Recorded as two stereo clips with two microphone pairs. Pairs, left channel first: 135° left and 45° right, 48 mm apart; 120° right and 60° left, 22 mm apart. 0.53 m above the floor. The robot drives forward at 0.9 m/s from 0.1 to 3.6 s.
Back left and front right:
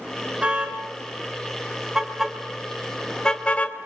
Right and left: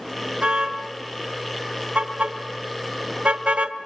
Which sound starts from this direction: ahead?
A car horn, at 0.4 s.